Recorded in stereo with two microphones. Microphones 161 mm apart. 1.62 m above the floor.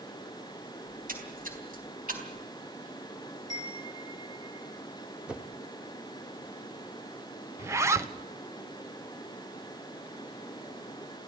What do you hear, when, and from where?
0.9 s a splash: 60° right (ahead or behind), 4 m
3.5 s a chime: 25° right (ahead or behind), 7 m
5.3 s a whoosh: 5° right (ahead or behind), 1.2 m
7.6 s a zipper: 15° right (ahead or behind), 1.0 m